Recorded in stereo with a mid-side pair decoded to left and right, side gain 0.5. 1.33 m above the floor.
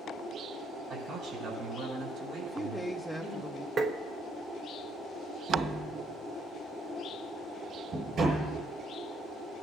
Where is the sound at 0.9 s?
55° right, 7 m; by 3.4 s 75° right, 6 m.